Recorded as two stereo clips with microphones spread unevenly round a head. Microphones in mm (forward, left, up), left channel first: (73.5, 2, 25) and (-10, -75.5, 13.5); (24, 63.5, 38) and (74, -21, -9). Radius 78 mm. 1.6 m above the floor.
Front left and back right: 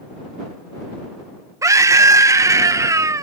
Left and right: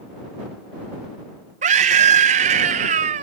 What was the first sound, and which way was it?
A scream, 75° right.